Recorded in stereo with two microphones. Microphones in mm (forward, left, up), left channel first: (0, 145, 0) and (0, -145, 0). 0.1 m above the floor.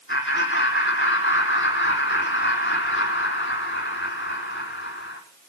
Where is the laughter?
40° left (ahead or behind), 4.5 m.